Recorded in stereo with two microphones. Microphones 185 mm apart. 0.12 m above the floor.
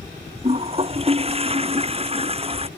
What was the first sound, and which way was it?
A toilet flushing, 30° right (ahead or behind).